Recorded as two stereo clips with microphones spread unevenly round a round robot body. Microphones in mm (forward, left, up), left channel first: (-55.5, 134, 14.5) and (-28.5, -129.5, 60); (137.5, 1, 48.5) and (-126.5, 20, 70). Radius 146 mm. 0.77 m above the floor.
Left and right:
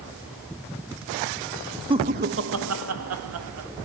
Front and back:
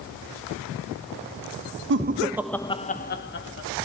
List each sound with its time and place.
1.9 s laughter: 160° right, 0.6 m; by 3.7 s 40° right, 1.4 m